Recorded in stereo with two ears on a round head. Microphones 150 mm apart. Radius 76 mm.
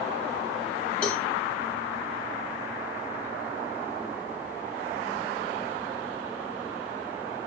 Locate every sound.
1.0 s a cowbell: 10° left (ahead or behind), 1.0 m